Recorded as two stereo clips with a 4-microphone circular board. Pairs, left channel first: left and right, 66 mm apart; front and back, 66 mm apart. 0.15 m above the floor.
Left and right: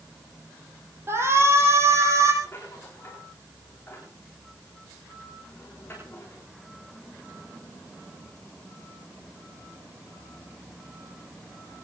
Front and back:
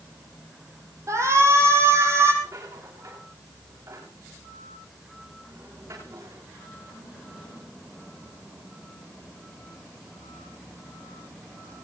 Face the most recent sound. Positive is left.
turn(degrees=150)